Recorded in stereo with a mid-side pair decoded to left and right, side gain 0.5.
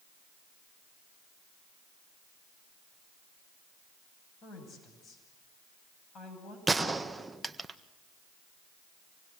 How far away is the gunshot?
About 1.5 m.